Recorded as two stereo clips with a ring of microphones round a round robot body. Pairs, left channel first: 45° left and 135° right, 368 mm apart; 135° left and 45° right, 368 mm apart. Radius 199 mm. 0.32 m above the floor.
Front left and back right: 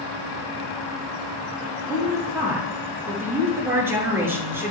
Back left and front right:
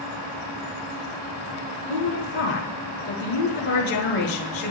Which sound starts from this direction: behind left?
A woman speaking, at 1.9 s.